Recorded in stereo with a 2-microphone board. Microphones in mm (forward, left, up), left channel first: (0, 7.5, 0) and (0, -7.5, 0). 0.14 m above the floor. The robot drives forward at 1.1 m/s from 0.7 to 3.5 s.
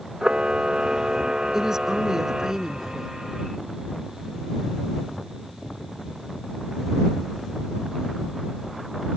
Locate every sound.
0.2 s a camera shutter: 65° right (ahead or behind); by 2.5 s 50° right (ahead or behind)
1.5 s a woman speaking: 35° right (ahead or behind); by 3.1 s 25° right (ahead or behind)